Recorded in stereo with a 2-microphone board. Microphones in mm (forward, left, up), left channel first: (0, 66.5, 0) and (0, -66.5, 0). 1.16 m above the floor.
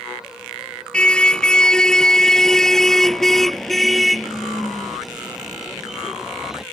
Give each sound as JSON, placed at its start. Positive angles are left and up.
{"t": 0.9, "sound": "a car horn", "side_deg": 10}